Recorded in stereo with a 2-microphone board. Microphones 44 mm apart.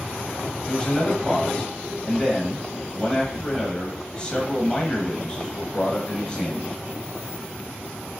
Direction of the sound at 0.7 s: 25° left (ahead or behind).